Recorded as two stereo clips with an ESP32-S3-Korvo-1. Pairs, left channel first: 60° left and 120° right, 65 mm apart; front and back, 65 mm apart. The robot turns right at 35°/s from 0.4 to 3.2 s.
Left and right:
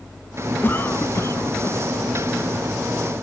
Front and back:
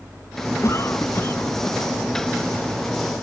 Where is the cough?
15° left; by 1.8 s 55° left.